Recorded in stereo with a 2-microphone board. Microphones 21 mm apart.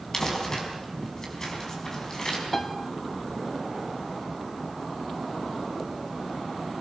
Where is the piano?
20° left (ahead or behind), 1.6 m.